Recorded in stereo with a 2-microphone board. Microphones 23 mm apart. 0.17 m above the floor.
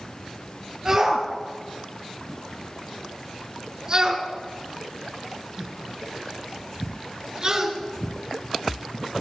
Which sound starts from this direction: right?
A shout, at 0.8 s.